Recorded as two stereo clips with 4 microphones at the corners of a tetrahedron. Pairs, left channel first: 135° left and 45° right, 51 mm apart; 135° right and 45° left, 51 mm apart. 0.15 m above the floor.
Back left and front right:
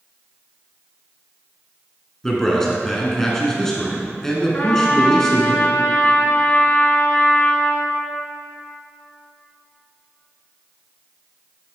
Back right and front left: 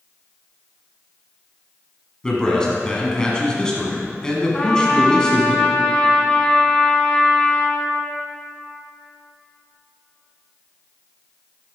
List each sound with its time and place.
2.2 s a man speaking: 165° right, 1.2 m
4.5 s a trumpet: 165° left, 0.9 m